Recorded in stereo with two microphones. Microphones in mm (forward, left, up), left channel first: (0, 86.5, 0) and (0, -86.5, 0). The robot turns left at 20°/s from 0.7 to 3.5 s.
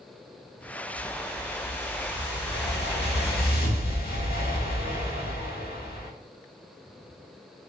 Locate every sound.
0.9 s a whoosh: 115° left, 0.8 m; by 6.1 s 65° left, 0.8 m